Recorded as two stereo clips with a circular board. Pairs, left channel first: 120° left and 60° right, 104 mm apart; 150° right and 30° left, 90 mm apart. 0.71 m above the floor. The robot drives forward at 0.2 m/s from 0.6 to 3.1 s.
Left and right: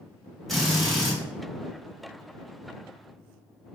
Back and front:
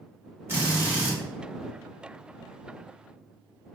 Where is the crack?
I don't hear a crack.